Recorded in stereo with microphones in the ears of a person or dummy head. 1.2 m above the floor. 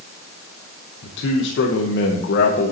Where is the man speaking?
70° left (ahead or behind), 0.7 m.